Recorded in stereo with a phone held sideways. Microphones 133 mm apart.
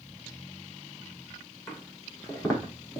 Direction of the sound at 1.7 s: 25° left (ahead or behind).